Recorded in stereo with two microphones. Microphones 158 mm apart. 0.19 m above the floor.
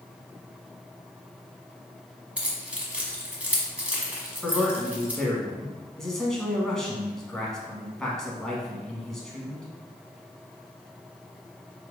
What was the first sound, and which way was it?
Keys jangling, 5° right (ahead or behind).